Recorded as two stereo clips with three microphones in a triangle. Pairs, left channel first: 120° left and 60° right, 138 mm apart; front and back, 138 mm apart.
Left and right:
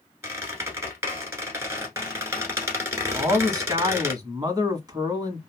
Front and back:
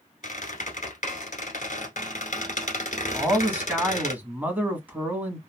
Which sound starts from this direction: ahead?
A squeak, at 0.2 s.